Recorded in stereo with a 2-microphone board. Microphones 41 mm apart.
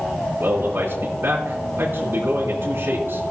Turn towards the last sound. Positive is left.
turn(degrees=-60)  # may be behind; listen again after turning